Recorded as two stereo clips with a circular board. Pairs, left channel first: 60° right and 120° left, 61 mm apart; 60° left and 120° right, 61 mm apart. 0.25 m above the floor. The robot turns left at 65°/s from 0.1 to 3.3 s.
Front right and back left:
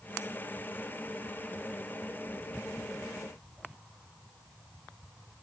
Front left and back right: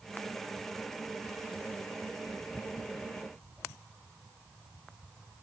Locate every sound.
Only background noise.